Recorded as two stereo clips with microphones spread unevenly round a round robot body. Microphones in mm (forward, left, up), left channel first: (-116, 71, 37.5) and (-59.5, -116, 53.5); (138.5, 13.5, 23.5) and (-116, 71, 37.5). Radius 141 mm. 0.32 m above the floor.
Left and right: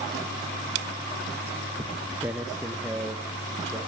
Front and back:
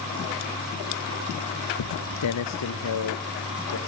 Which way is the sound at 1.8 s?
5° right.